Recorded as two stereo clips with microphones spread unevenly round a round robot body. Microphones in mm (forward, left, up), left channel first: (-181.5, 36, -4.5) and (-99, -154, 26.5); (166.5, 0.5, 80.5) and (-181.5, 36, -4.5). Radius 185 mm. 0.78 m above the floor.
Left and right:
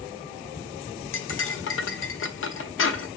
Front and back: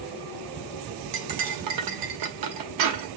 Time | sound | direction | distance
1.1 | cutlery clinking | 140° left | 0.8 m